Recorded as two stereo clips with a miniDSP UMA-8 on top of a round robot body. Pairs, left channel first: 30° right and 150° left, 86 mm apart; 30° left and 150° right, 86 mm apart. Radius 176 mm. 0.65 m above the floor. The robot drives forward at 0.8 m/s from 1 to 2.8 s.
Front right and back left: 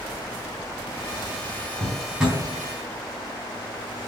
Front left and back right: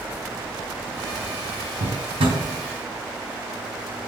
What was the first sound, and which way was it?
A drawer, 125° right.